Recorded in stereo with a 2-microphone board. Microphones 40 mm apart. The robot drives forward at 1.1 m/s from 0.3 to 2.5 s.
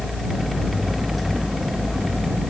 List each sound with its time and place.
Only background noise.